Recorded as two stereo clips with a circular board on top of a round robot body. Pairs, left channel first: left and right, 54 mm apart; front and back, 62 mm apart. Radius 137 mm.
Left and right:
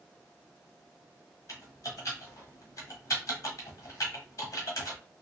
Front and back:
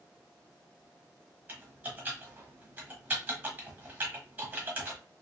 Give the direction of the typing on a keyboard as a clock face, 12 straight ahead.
8 o'clock.